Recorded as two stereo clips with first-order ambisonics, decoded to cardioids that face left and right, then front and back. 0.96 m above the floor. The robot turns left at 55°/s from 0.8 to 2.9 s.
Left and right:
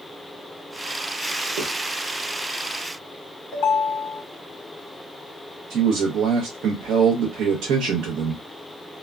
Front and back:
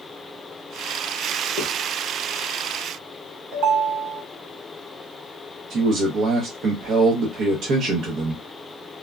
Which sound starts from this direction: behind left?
A ringtone, at 3.5 s.